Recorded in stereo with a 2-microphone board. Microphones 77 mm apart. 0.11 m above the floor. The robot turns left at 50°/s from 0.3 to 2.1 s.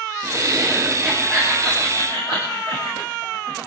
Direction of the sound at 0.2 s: 135° right.